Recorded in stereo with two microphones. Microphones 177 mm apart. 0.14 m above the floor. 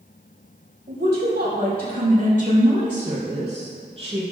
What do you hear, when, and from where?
0.9 s a woman speaking: 65° right (ahead or behind), 3.5 m; by 4.2 s 30° right (ahead or behind), 3.5 m